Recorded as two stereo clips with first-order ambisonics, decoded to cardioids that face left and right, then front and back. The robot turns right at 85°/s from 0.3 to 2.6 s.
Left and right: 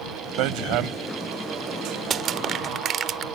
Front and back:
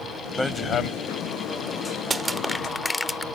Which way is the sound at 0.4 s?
90° right.